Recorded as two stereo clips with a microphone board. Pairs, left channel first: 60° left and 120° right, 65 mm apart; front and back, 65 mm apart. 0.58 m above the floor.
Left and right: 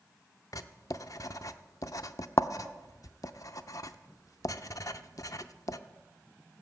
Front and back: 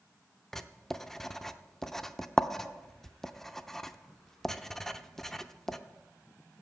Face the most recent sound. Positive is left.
turn(degrees=85)